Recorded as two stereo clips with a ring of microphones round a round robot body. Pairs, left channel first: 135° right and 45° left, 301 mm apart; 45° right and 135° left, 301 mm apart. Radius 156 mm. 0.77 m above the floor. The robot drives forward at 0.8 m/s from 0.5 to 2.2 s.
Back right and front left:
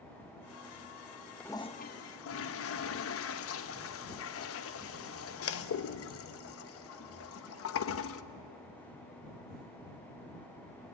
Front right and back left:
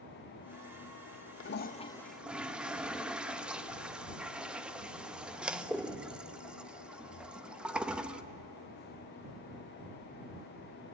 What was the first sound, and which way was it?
A toilet flushing, 50° right.